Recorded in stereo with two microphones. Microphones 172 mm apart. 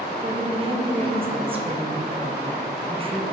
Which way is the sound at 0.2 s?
30° right (ahead or behind).